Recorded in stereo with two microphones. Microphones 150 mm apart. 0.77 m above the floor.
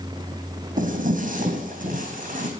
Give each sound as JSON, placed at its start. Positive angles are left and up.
{"t": 0.8, "sound": "footsteps", "side_deg": -60, "distance_m": 1.8}